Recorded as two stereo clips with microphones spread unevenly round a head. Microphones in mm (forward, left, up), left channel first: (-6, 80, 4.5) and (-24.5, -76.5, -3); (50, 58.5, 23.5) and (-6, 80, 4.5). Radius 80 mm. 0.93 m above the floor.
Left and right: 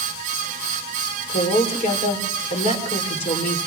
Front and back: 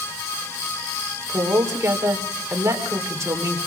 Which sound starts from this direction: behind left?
A woman speaking, at 1.3 s.